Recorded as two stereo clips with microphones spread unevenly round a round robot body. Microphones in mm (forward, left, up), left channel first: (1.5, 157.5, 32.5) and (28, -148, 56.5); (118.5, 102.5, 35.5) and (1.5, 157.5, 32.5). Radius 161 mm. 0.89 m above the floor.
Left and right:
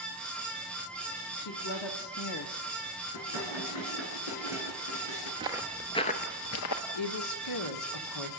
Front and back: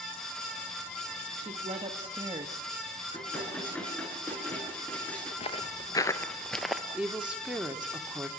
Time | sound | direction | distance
1.4 | a woman speaking | 120° left | 1.9 m
3.1 | dishes clattering | 55° left | 8.5 m
5.4 | footsteps | 20° right | 1.1 m
6.9 | a woman speaking | 70° left | 2 m